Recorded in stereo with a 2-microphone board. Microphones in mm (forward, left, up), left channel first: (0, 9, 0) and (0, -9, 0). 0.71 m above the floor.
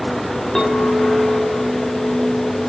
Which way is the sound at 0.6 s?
30° left (ahead or behind).